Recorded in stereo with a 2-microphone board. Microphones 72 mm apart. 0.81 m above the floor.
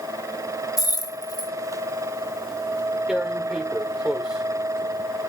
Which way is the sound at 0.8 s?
55° left (ahead or behind).